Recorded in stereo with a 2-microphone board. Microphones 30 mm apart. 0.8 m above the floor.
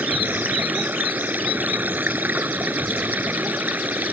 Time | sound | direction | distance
0.0 | running water | 75° right (ahead or behind) | ?